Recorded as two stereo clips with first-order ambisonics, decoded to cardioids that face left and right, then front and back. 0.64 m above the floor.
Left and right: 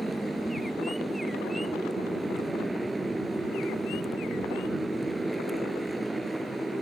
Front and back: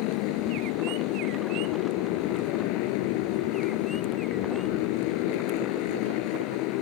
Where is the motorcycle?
5° right.